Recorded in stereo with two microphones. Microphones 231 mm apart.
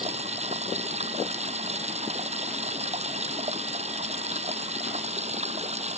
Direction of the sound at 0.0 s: 30° right (ahead or behind).